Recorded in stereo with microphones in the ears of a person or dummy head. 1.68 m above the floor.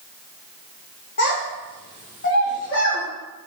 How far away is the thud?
I don't hear a thud.